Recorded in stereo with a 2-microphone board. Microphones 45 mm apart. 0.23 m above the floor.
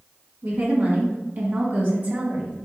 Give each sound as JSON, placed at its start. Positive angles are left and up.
{"t": 0.4, "sound": "a woman speaking", "side_deg": -45, "distance_m": 1.9}